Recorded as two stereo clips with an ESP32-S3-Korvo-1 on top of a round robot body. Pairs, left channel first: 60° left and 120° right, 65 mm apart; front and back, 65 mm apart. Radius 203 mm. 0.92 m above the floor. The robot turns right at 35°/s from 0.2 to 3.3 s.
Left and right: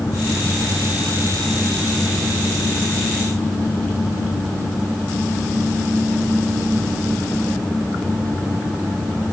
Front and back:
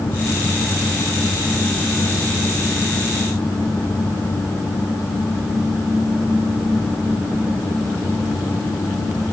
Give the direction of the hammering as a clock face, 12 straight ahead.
No hammering in this recording.